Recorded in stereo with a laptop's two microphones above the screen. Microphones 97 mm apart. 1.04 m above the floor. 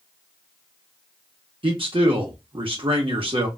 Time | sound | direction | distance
1.6 | a man speaking | 60° right (ahead or behind) | 1.5 m